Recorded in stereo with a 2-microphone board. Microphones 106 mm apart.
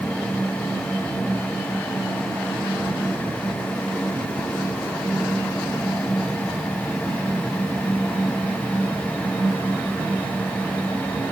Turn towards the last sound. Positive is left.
No sound to turn to.